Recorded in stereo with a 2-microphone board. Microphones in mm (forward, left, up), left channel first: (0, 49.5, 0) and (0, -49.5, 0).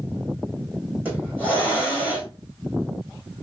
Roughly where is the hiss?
Centre.